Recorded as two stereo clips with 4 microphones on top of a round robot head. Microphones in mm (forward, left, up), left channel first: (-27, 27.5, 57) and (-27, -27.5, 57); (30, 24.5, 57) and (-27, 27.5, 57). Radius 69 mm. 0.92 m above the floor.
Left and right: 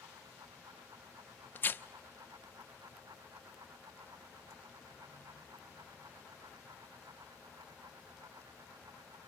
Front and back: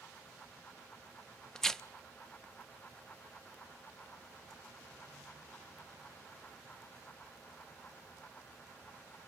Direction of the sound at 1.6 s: 70° left.